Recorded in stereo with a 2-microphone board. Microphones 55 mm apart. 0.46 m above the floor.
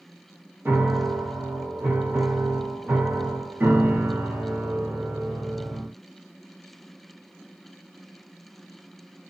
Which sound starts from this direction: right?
A piano, at 0.7 s.